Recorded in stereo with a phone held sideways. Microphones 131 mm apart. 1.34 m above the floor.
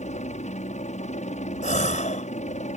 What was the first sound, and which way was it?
A helicopter, 60° left (ahead or behind).